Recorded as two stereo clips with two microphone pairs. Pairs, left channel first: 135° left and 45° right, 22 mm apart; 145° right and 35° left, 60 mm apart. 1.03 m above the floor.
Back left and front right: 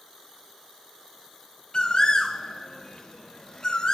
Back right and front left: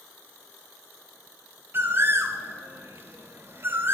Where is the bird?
85° left, 0.6 m.